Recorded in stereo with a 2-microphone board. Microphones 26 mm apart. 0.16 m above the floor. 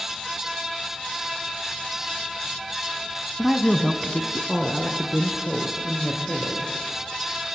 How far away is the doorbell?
No doorbell in this recording.